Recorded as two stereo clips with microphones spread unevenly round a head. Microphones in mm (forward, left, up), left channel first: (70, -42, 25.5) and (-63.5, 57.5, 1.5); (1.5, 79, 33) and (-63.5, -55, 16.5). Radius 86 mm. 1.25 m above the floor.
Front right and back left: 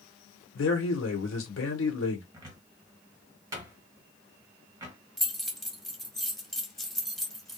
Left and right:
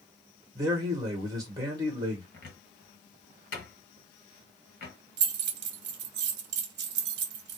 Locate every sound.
0.6 s a man speaking: 50° right, 1.2 m
2.3 s a cupboard door: 70° left, 1.3 m
5.2 s keys jangling: 125° right, 0.7 m